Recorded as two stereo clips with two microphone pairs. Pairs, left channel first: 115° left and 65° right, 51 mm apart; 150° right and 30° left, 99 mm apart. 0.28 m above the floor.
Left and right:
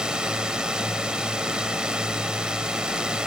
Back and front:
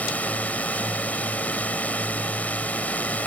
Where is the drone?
105° right.